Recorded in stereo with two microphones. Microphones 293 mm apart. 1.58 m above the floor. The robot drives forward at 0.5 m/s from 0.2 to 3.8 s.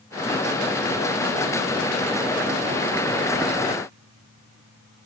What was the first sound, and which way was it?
Only background noise.